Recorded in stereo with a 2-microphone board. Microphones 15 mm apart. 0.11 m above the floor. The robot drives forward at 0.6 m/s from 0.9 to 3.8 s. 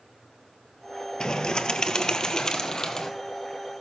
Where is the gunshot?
I don't hear a gunshot.